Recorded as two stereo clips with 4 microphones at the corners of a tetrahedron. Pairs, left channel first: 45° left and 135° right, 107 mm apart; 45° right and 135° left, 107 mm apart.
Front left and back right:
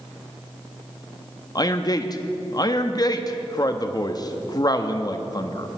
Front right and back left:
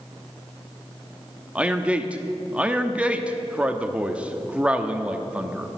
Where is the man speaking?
60° left, 0.8 m.